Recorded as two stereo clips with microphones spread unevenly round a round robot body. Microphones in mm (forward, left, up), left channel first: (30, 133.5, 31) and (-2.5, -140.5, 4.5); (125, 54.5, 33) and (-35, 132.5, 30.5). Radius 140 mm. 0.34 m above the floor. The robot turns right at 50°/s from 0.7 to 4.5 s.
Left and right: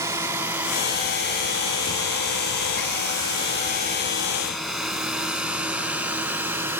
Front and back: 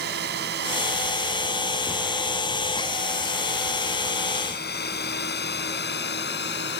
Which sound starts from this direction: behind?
A drone, at 0.0 s.